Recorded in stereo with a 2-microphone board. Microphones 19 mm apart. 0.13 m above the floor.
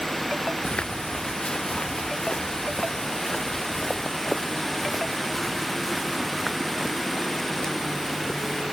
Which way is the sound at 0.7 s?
75° left (ahead or behind).